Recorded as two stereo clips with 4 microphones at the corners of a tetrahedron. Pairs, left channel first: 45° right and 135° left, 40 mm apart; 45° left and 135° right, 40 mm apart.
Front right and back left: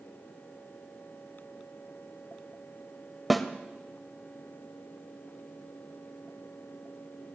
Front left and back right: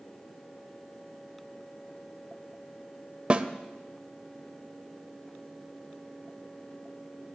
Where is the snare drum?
135° right, 0.7 m.